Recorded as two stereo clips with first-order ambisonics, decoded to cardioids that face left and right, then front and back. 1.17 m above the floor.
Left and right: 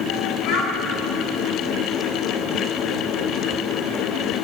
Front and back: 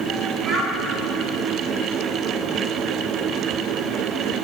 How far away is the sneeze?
I don't hear a sneeze.